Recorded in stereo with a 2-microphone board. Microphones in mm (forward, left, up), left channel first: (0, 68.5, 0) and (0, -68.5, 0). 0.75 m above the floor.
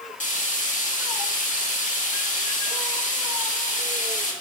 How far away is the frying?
About 1.2 m.